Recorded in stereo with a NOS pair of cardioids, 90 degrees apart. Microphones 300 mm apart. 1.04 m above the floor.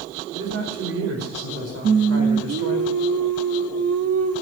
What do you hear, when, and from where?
0.3 s a man speaking: 55° right, 4.5 m
1.8 s singing: 50° right, 1.0 m